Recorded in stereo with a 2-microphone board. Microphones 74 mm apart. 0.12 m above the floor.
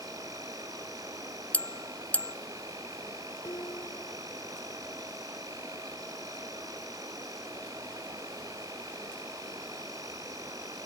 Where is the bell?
20° left (ahead or behind).